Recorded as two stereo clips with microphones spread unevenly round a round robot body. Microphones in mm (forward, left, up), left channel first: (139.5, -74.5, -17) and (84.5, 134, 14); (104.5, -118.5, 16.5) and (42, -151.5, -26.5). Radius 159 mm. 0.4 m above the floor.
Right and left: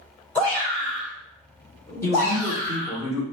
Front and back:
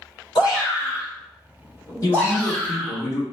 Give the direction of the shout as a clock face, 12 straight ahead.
12 o'clock.